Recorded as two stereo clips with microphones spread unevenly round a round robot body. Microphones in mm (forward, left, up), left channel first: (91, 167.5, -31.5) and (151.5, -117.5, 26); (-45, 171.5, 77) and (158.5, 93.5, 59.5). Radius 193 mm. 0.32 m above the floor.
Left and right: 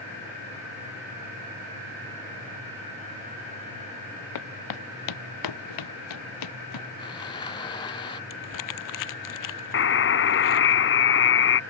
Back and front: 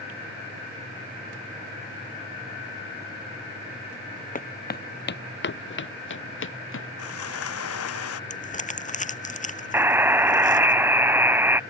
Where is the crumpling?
105° left.